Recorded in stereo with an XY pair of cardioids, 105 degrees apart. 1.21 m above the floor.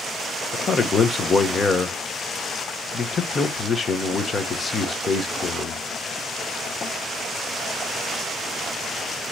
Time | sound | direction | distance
0.5 | a man speaking | 40° left | 0.9 m